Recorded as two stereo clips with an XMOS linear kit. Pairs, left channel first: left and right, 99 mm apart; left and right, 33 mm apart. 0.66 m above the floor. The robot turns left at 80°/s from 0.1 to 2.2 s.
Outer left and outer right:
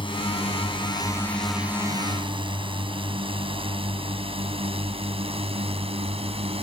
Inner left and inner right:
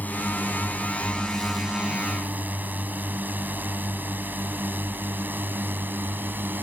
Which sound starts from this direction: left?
A drone, at 0.0 s.